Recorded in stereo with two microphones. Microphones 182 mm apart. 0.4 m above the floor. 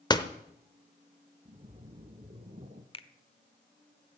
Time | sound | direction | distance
0.1 | a door slam | 25° left (ahead or behind) | 1.0 m
1.4 | a splash | 35° right (ahead or behind) | 1.6 m
2.9 | a finger snap | 30° left (ahead or behind) | 0.9 m